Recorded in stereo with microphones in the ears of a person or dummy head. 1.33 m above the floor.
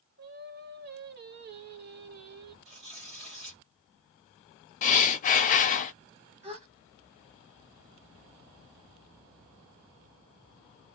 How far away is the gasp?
About 1.4 m.